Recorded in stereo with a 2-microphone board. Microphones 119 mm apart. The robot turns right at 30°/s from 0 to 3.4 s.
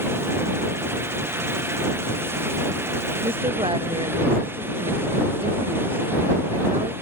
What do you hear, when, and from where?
3.2 s a woman speaking: 55° right (ahead or behind); by 6.9 s 45° right (ahead or behind)